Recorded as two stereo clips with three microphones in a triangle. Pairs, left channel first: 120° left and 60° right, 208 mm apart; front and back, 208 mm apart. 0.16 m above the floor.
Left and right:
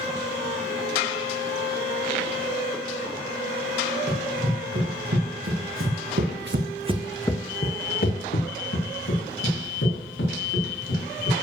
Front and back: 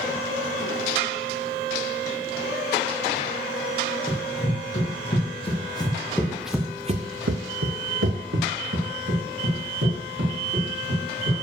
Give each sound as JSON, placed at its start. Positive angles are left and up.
{"t": 4.1, "sound": "running footsteps", "azimuth_deg": -55, "distance_m": 3.5}